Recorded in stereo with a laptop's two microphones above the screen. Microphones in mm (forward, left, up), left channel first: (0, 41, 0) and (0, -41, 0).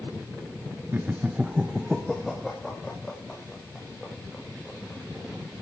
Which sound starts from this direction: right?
Laughter, at 0.9 s.